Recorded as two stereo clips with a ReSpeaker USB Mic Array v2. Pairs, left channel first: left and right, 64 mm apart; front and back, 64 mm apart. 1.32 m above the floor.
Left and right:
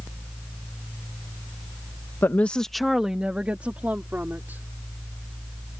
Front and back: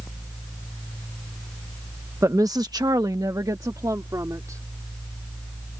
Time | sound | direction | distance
2.2 | a woman speaking | 140° left | ?